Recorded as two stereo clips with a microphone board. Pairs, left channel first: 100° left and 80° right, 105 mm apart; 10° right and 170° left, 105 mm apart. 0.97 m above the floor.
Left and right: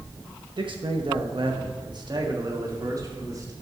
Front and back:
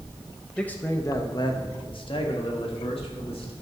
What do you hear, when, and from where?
0.6 s a man speaking: 90° right, 0.9 m; by 3.5 s 25° right, 3 m